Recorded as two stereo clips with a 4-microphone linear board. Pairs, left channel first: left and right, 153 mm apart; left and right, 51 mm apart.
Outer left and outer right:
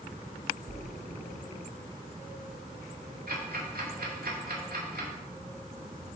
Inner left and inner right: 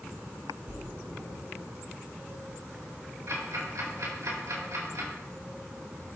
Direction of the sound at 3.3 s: 80° right.